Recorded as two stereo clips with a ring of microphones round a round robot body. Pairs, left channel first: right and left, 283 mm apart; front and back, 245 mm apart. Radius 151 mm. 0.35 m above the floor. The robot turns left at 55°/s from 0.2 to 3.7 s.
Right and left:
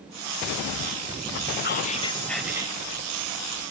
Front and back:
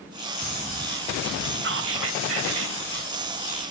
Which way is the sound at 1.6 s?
140° right.